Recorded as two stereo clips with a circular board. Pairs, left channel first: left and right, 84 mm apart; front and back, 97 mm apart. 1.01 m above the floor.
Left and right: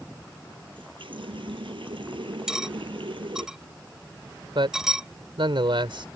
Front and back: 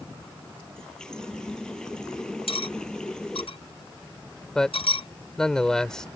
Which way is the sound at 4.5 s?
85° right.